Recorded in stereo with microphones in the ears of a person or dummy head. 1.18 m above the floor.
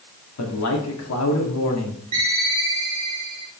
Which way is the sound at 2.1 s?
35° right (ahead or behind).